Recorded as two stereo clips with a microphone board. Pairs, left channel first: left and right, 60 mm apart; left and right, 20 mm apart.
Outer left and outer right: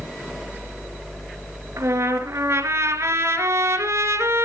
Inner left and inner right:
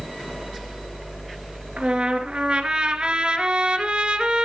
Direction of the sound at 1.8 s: 50° right (ahead or behind).